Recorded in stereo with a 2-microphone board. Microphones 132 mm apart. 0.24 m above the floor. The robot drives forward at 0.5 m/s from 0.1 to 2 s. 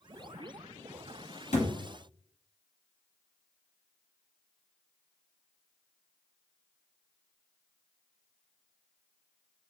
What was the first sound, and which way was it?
A thud, 65° left (ahead or behind).